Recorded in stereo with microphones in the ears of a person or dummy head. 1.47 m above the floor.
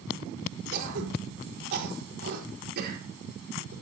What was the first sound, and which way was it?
Throat clearing, 60° right (ahead or behind).